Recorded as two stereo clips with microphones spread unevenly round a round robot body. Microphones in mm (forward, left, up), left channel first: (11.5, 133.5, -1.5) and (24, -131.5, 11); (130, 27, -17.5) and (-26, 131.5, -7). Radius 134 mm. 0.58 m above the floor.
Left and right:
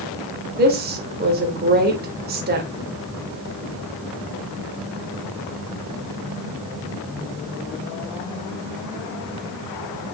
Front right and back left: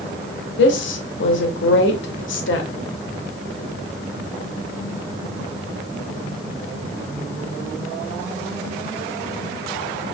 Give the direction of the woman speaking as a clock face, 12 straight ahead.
1 o'clock.